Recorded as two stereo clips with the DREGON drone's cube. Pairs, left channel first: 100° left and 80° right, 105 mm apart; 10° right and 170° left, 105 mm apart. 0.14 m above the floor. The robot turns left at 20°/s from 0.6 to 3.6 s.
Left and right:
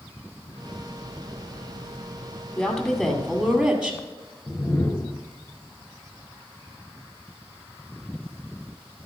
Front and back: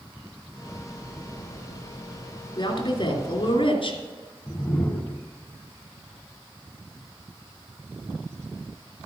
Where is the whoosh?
55° left, 1.0 m.